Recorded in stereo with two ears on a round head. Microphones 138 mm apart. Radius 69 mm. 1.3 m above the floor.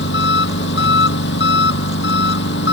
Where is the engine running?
80° left.